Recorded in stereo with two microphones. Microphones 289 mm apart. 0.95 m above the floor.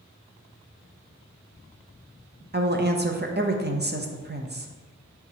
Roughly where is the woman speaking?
Right.